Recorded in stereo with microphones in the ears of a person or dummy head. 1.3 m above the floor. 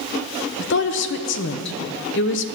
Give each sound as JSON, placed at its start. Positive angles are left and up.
{"t": 0.6, "sound": "a woman speaking", "side_deg": 55, "distance_m": 0.9}